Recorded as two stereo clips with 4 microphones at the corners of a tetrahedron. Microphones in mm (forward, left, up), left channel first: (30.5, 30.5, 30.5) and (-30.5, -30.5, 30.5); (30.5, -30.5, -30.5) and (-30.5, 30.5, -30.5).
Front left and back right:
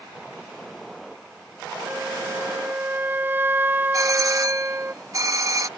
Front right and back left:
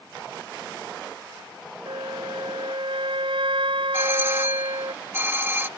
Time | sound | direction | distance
1.9 | a flute | 155° left | ?
3.9 | a doorbell | 165° right | ?